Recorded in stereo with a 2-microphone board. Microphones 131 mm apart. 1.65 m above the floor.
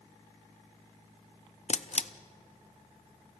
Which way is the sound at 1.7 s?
55° left (ahead or behind).